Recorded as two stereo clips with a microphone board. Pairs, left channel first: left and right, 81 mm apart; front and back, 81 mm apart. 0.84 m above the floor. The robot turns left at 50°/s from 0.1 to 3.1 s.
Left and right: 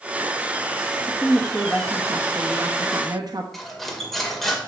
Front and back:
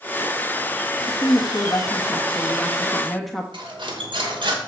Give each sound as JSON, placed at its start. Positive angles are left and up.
{"t": 1.1, "sound": "a woman speaking", "azimuth_deg": 15, "distance_m": 1.1}
{"t": 3.5, "sound": "cutlery clinking", "azimuth_deg": 180, "distance_m": 1.9}